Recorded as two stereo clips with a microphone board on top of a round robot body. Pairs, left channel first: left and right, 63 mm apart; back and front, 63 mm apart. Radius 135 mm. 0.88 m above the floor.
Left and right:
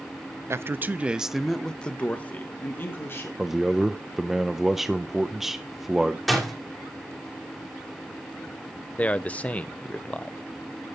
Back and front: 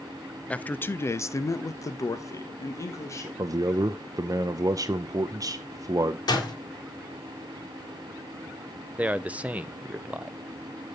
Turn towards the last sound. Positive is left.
turn(degrees=45)